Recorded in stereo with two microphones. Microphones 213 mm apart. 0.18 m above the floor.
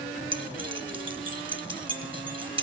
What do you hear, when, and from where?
0.3 s keys jangling: 25° right (ahead or behind), 1.5 m